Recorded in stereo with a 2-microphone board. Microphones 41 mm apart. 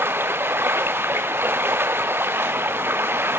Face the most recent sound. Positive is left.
turn(degrees=-60)  # may be behind; listen again after turning